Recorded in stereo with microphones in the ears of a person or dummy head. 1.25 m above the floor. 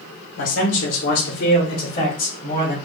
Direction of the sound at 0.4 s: 60° left (ahead or behind).